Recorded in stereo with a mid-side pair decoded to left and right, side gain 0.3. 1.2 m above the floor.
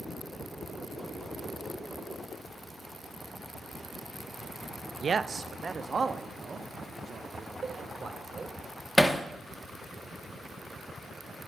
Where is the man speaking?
55° right, 0.8 m; by 8.6 s 50° right, 4 m.